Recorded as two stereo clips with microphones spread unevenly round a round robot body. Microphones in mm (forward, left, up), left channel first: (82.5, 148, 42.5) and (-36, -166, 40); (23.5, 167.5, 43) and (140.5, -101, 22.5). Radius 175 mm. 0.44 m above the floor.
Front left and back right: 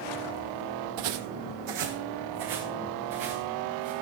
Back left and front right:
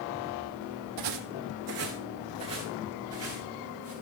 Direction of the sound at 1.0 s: 90° right.